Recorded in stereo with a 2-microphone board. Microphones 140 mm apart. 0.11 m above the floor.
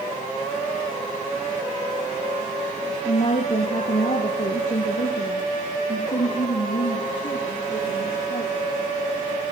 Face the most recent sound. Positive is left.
turn(degrees=70)  # may be behind; listen again after turning